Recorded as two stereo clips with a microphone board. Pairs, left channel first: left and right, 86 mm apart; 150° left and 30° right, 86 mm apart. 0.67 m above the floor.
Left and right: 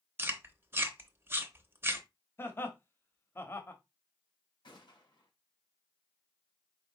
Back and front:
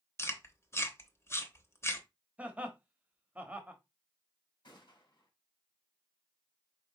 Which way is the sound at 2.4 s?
40° left.